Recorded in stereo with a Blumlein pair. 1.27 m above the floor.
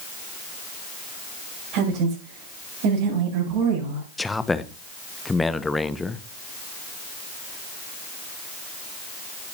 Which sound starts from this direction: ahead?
A man speaking, at 4.2 s.